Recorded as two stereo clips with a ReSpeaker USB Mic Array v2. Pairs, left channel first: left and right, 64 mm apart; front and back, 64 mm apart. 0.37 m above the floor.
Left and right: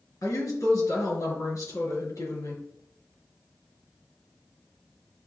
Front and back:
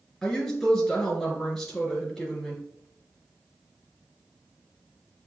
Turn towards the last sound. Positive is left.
turn(degrees=85)